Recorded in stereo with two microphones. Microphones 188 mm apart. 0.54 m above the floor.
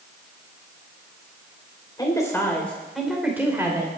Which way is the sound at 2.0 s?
20° left (ahead or behind).